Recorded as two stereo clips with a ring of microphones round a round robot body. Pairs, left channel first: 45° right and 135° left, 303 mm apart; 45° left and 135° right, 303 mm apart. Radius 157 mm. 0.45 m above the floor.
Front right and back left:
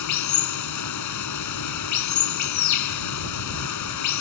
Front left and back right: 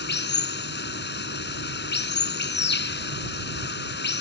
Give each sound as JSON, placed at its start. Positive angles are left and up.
{"t": 0.0, "sound": "running water", "azimuth_deg": -10}